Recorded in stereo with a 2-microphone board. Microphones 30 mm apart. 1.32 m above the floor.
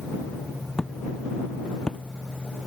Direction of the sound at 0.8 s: 15° left (ahead or behind).